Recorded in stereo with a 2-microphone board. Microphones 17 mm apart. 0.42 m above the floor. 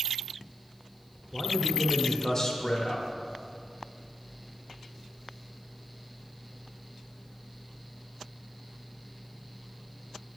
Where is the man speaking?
25° left (ahead or behind), 0.9 m.